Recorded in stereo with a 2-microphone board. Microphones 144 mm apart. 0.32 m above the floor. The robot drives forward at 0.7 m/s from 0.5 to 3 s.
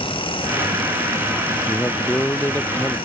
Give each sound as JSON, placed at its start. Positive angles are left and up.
{"t": 1.7, "sound": "a man speaking", "side_deg": 15}